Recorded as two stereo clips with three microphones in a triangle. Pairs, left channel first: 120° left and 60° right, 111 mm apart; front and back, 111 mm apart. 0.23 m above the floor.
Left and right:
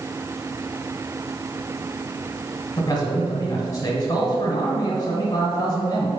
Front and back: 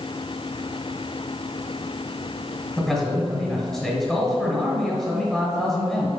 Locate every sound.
2.8 s a man speaking: 85° left, 1.4 m